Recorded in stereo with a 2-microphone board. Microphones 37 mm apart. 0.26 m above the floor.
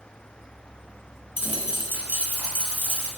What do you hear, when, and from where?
1.4 s a dropped coin: 50° right (ahead or behind), 0.9 m